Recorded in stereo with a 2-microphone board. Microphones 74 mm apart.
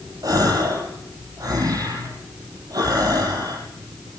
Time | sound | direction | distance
0.2 | a gasp | 55° right (ahead or behind) | 6 m